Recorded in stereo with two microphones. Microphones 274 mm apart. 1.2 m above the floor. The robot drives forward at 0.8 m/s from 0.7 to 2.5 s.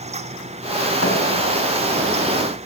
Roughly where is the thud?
Left.